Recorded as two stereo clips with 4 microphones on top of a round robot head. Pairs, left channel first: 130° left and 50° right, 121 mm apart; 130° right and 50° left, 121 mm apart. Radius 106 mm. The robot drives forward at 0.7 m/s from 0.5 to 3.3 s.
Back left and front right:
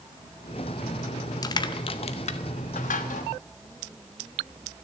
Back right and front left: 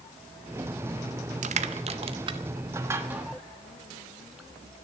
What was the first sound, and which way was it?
Crushing, 70° left.